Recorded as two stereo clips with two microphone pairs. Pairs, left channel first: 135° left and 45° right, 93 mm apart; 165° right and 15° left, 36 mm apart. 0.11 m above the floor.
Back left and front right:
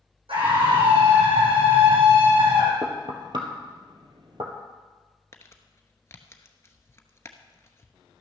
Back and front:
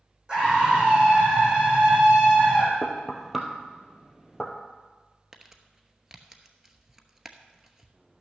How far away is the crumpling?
About 0.9 m.